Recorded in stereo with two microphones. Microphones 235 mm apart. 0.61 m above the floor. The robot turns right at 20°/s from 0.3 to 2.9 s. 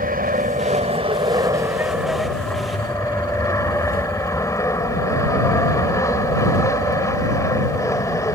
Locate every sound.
0.0 s an aircraft: 40° right; by 8.4 s 15° left